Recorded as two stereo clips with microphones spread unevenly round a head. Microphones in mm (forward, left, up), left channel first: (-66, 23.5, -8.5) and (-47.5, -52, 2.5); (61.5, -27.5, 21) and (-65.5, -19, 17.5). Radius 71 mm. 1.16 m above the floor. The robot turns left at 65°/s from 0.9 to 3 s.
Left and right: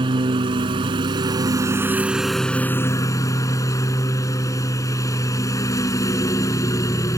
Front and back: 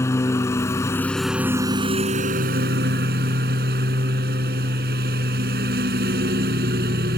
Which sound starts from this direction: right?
A lawn mower, at 0.0 s.